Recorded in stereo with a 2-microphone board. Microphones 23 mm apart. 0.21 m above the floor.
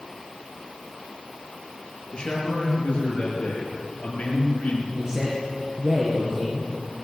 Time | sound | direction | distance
2.1 | a man speaking | 35° left (ahead or behind) | 3.5 m
4.9 | a man speaking | 30° right (ahead or behind) | 3 m